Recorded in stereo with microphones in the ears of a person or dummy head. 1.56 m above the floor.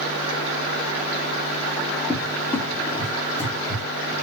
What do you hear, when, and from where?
2.1 s a cupboard door: 15° left (ahead or behind), 1.5 m